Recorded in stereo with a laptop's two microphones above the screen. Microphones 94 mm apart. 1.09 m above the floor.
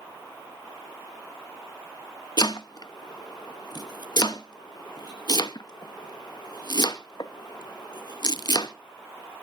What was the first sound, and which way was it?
Chopping, 45° left (ahead or behind).